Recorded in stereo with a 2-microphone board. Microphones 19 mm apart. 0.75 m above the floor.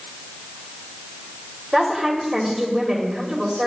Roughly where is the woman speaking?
Right.